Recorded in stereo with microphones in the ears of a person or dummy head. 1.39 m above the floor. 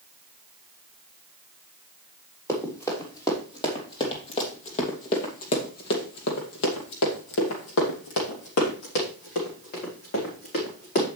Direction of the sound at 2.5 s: 15° left (ahead or behind).